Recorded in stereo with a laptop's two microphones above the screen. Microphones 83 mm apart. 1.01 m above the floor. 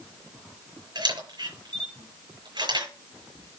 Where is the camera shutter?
60° right (ahead or behind), 6 m.